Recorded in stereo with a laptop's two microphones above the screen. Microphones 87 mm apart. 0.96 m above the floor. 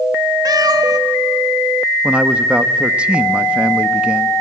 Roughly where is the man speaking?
Centre.